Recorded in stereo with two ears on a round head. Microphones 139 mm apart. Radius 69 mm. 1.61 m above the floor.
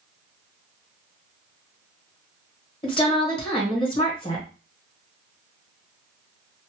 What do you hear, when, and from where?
2.8 s a woman speaking: 35° left (ahead or behind), 1.2 m